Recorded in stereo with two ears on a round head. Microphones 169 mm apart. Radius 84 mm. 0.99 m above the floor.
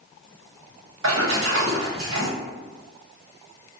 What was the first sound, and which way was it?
A splash, 75° right (ahead or behind).